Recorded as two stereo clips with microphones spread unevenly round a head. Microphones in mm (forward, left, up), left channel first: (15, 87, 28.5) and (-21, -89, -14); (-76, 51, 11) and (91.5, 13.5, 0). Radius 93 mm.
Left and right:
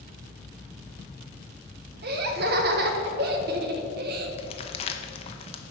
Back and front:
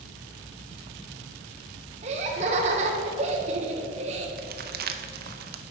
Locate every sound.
2.0 s laughter: 65° right, 1.1 m
4.4 s crumpling: 20° left, 0.7 m